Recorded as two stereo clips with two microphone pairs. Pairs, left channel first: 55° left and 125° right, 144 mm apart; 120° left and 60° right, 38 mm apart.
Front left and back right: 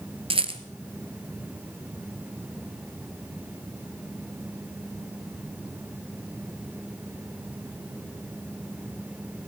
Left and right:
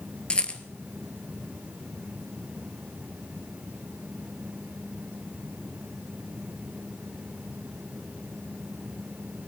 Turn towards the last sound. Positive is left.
turn(degrees=-175)